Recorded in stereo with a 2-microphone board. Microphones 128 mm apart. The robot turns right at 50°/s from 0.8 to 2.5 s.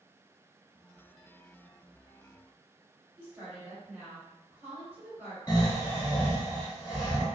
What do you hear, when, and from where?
3.2 s a woman speaking: 15° right (ahead or behind), 1.7 m
5.5 s snoring: 30° left (ahead or behind), 1.0 m